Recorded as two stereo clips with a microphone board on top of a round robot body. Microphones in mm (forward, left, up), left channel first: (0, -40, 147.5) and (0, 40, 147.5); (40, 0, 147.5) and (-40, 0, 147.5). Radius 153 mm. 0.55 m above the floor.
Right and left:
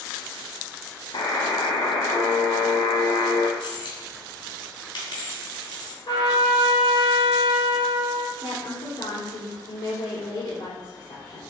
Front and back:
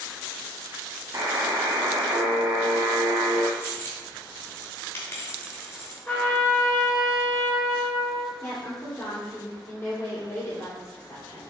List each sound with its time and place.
1.1 s a buzzer: 125° right, 1.1 m
3.6 s a dropped coin: 65° right, 2.5 m
6.1 s a trumpet: 70° right, 3 m
8.4 s a woman speaking: 65° right, 2.5 m